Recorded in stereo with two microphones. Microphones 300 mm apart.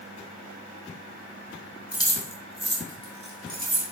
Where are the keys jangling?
15° left (ahead or behind), 1.0 m; by 3.9 s 45° right (ahead or behind), 1.3 m.